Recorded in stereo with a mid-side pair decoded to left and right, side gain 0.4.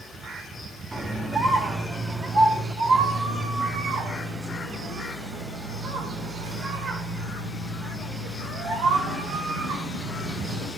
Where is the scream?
30° right, 3.5 m; by 10.7 s 75° right, 9.5 m.